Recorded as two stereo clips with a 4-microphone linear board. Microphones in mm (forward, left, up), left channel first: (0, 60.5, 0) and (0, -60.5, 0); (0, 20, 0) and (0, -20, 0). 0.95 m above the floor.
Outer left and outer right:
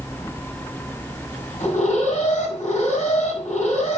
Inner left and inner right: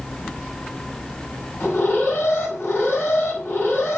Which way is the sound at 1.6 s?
85° left.